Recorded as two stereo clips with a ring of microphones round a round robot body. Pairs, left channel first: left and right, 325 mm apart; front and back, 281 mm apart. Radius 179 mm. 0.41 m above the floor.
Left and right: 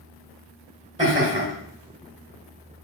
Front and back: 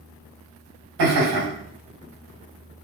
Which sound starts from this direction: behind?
Laughter, at 1.0 s.